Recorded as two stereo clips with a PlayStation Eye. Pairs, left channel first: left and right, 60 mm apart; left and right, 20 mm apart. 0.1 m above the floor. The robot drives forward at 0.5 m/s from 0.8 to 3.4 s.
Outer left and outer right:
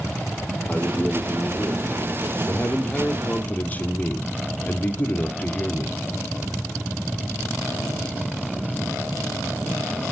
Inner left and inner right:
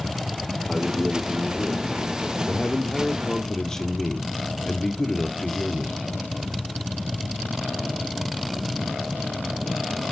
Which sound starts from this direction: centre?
A man speaking, at 0.7 s.